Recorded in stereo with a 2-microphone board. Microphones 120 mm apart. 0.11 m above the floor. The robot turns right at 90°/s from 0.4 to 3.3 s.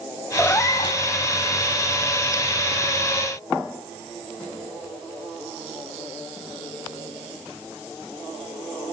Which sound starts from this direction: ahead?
A cat meowing, at 0.4 s.